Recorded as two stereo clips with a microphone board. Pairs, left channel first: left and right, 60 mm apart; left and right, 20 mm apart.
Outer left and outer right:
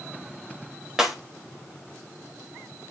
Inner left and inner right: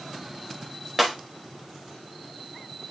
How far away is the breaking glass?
About 5 m.